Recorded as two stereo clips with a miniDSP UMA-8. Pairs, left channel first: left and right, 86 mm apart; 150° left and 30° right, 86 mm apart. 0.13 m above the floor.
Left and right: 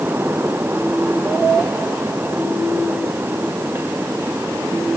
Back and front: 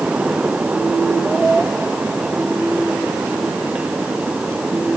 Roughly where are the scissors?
I don't hear scissors.